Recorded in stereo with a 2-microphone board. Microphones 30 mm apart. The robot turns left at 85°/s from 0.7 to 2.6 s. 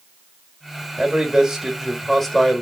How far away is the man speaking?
About 1.1 m.